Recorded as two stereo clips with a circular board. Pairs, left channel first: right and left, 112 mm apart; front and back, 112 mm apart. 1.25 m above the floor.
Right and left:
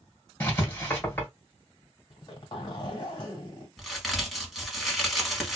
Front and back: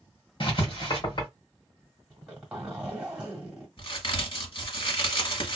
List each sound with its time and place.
0.4 s writing: 25° right, 1.5 m
2.1 s a zipper: 105° right, 1.4 m
3.8 s a crack: straight ahead, 1.4 m